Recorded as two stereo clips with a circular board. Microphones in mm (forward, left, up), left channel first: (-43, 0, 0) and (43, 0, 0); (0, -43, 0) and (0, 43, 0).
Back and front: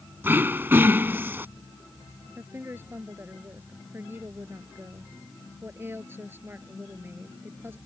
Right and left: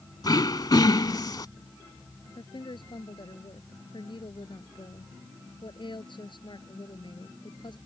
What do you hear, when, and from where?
0.2 s throat clearing: 60° right
2.4 s a woman speaking: 65° right